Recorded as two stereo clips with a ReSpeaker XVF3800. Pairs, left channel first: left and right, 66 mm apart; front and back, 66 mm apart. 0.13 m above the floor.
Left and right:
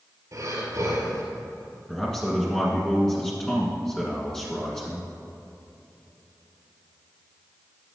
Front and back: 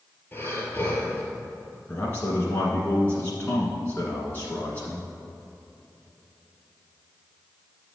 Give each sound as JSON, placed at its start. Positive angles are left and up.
{"t": 0.3, "sound": "breathing", "azimuth_deg": -60, "distance_m": 2.0}
{"t": 1.9, "sound": "a man speaking", "azimuth_deg": 20, "distance_m": 1.4}